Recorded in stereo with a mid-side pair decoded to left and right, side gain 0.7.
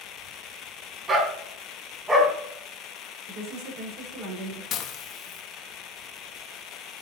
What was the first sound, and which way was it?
A dog barking, 30° right.